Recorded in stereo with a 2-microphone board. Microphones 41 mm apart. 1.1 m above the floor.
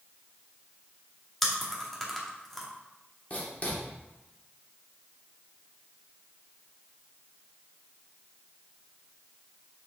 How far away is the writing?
About 2 m.